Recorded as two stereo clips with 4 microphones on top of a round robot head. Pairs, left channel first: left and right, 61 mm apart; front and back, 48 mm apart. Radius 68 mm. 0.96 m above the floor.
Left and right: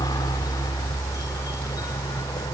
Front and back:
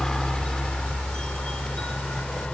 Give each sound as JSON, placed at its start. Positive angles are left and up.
{"t": 0.0, "sound": "a helicopter", "azimuth_deg": 75}